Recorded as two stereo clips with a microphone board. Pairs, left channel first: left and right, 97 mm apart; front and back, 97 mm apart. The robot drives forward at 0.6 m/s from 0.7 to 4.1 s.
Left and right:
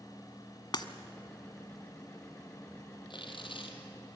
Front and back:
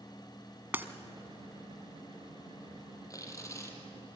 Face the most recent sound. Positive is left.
turn(degrees=65)